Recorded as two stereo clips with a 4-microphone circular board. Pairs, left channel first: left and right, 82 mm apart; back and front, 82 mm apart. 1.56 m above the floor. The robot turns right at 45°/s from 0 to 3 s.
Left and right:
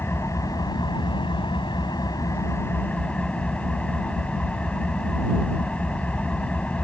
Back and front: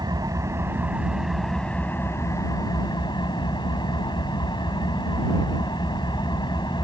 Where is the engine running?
30° left; by 6.9 s 165° left.